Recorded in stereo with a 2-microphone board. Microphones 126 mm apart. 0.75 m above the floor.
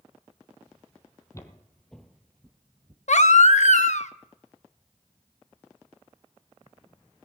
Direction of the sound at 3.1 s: 65° left (ahead or behind).